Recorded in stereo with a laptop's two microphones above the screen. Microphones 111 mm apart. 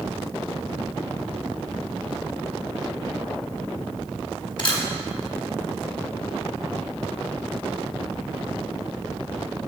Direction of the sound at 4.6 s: 45° left (ahead or behind).